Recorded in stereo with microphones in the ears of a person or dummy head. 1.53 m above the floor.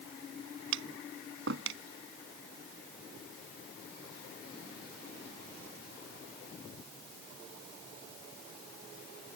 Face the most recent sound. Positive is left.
turn(degrees=-85)